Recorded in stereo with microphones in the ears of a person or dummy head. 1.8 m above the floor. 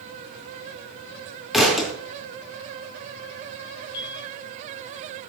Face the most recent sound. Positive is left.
turn(degrees=25)  # may be behind; listen again after turning